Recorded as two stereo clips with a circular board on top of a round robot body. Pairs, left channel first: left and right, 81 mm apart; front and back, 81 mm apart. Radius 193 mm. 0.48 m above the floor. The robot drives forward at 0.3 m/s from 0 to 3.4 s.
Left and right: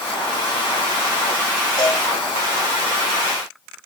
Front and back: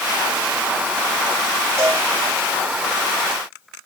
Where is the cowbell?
120° left, 4 m.